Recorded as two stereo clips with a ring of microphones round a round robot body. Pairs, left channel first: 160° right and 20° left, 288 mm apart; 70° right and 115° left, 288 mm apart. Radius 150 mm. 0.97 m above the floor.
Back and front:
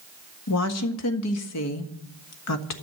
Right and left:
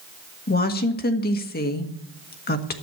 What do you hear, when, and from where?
0.5 s a woman speaking: 125° right, 1.6 m